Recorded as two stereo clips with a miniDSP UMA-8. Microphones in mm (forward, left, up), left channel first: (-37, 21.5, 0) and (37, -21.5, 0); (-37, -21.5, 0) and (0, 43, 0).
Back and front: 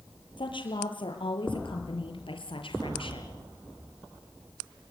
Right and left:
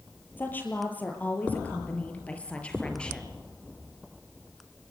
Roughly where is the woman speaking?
Behind.